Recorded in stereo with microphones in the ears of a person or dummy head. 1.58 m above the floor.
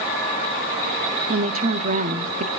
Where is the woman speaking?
40° right (ahead or behind), 0.6 m.